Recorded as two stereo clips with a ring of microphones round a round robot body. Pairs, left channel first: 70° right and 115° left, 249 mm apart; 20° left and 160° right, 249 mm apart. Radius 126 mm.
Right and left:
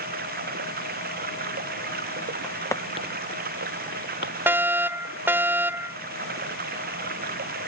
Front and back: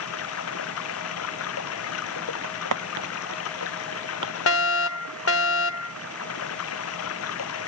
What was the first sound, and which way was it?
Running water, 55° left.